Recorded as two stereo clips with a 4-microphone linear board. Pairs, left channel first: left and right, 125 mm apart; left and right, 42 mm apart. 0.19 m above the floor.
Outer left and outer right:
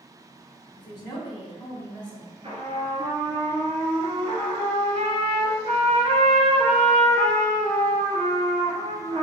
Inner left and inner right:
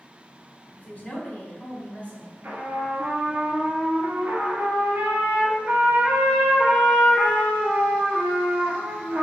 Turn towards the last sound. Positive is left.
turn(degrees=-50)  # may be behind; listen again after turning